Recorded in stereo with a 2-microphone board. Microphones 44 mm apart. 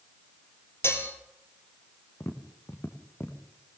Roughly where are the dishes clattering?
Left.